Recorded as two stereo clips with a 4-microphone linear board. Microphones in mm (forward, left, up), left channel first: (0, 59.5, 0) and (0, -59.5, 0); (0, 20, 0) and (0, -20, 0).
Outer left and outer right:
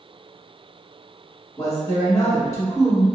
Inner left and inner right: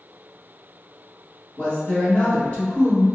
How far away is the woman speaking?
About 1.2 m.